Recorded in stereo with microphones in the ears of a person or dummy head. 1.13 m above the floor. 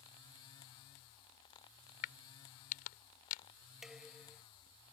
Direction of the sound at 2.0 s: 50° left (ahead or behind).